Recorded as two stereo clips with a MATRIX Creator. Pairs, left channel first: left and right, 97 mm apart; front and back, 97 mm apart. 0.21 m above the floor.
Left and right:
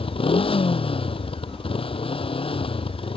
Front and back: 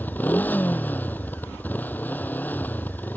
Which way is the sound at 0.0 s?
70° left.